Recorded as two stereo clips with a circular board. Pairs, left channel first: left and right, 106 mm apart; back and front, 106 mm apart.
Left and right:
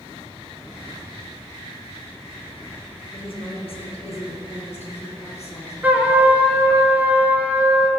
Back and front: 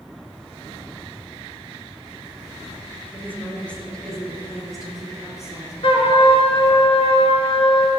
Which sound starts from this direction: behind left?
A woman speaking, at 3.1 s.